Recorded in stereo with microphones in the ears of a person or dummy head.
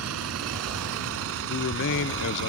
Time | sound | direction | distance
0.0 | a vehicle | 75° right (ahead or behind) | ?
1.5 | a man speaking | 65° left (ahead or behind) | ?